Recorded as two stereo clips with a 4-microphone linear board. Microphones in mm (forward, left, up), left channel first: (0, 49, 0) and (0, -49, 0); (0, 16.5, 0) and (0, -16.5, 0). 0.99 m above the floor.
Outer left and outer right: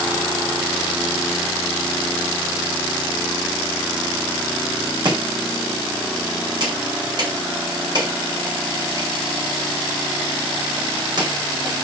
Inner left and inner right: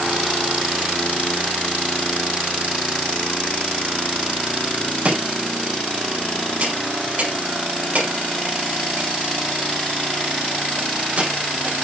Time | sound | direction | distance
5.0 | chopping | 50° right (ahead or behind) | 4.5 m